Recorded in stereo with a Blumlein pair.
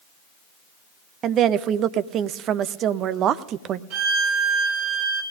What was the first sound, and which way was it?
A woman speaking, 30° right.